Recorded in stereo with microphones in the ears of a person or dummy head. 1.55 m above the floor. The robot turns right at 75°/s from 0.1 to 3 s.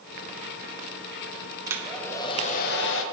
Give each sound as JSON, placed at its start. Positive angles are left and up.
{"t": 1.7, "sound": "a hair dryer", "azimuth_deg": -20, "distance_m": 0.5}